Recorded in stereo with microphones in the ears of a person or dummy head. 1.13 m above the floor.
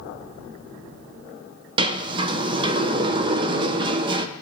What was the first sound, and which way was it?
A sliding door, 25° right (ahead or behind).